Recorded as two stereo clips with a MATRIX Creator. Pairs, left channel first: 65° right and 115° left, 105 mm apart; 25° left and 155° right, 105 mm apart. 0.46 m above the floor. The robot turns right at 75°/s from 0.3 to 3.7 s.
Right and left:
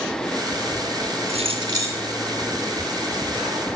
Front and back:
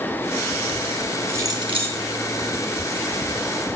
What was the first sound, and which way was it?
Keys jangling, 135° left.